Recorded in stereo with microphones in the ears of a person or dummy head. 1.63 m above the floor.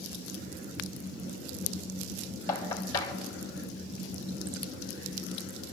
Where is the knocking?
20° left (ahead or behind), 3 m.